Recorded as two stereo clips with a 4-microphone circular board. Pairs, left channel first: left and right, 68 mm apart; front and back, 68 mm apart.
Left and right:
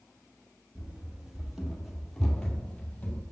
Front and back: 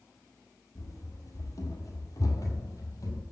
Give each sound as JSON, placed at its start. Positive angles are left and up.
{"t": 0.8, "sound": "running footsteps", "azimuth_deg": -20, "distance_m": 1.8}